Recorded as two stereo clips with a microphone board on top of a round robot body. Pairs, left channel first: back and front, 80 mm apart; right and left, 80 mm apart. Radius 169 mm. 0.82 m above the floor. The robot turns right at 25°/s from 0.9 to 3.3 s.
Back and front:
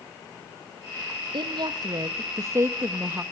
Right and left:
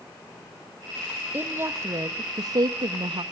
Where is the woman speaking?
25° left, 1.0 m; by 3.2 s 70° left, 1.0 m.